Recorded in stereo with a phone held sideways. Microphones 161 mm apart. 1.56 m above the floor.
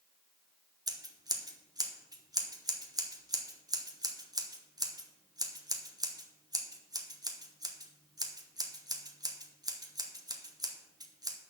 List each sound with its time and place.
0.9 s scissors: 25° right (ahead or behind), 1.0 m